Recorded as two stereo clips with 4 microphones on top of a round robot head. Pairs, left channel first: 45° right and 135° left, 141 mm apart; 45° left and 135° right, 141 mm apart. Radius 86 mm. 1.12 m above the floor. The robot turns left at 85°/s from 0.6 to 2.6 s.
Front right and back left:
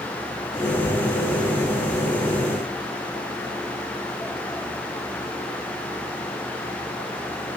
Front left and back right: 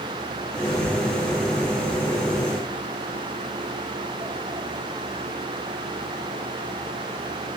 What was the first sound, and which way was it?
Only background noise.